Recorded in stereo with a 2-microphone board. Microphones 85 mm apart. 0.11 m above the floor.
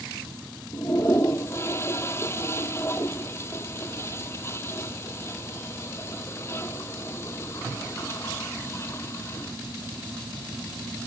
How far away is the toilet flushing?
About 0.8 m.